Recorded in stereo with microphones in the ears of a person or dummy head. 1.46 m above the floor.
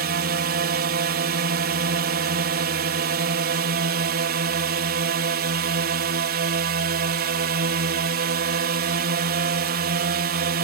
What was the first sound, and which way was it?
A drone, 55° right (ahead or behind).